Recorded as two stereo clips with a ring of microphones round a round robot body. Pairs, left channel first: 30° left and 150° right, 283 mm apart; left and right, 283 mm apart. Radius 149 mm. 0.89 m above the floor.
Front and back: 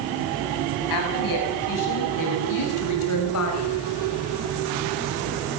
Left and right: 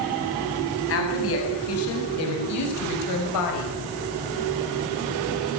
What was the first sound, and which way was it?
A woman speaking, 45° left.